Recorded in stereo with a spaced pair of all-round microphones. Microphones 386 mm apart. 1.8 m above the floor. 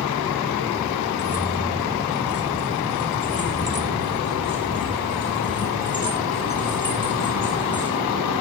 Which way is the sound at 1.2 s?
30° right (ahead or behind).